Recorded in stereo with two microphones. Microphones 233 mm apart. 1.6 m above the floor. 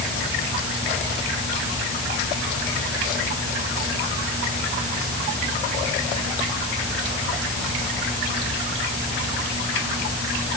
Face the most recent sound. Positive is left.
No sound to turn to.